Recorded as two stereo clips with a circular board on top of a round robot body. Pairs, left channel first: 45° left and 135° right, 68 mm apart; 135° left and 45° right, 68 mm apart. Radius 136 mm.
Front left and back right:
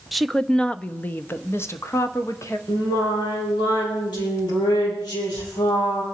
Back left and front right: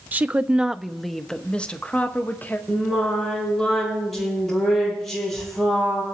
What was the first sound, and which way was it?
A woman speaking, 50° right.